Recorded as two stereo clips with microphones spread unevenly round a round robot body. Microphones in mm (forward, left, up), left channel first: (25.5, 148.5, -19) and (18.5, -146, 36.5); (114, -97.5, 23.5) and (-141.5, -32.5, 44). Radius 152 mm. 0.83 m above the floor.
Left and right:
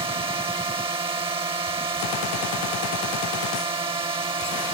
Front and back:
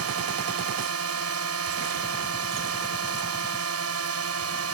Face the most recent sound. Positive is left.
turn(degrees=-170)